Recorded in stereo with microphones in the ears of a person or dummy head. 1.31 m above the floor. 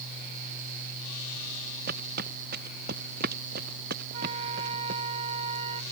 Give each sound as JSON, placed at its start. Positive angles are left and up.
{"t": 1.9, "sound": "footsteps", "side_deg": -65}
{"t": 4.1, "sound": "a flute", "side_deg": -40}